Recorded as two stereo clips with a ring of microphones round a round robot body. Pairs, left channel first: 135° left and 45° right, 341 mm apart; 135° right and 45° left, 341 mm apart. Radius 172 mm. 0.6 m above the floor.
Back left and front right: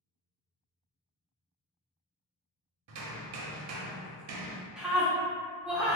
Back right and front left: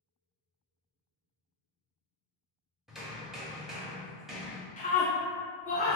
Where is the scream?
130° right, 0.5 m.